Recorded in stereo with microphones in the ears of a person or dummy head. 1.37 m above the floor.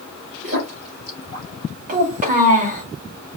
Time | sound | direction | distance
0.4 | a splash | 45° right (ahead or behind) | 3.5 m
1.9 | a child speaking | 40° right (ahead or behind) | 1.5 m